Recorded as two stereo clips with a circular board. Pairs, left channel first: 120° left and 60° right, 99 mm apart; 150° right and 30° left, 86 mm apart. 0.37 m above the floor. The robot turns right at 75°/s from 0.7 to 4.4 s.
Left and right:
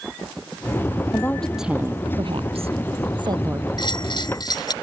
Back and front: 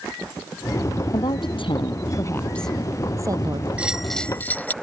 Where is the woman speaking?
Straight behind; by 3.7 s 10° left.